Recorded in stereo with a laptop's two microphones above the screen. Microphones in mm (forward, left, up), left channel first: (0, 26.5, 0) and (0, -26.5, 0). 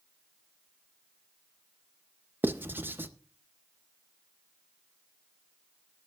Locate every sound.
2.4 s writing: 40° right (ahead or behind), 0.5 m